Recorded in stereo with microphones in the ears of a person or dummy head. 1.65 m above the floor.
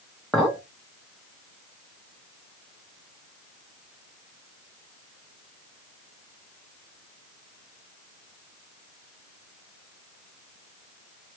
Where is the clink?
5° left (ahead or behind), 1.0 m.